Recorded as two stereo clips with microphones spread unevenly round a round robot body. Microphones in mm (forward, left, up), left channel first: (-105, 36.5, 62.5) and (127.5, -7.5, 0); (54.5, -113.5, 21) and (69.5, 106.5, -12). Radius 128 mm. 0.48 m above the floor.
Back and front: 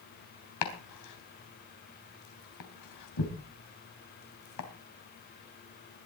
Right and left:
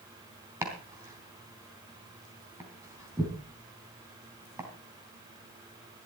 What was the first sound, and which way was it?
Chopping, 165° left.